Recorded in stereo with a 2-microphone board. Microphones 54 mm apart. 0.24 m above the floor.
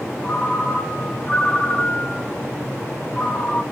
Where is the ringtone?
25° left (ahead or behind), 0.5 m.